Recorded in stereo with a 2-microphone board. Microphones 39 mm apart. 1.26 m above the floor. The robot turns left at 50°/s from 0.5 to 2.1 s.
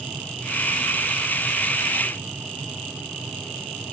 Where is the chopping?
I don't hear chopping.